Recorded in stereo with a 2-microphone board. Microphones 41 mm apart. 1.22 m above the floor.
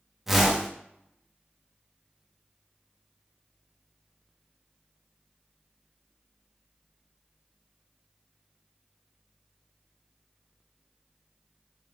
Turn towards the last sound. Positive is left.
turn(degrees=-5)  # may be behind; listen again after turning